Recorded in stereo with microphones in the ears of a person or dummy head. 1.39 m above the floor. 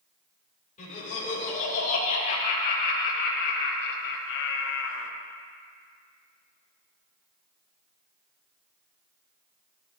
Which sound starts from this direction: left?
Laughter, at 0.8 s.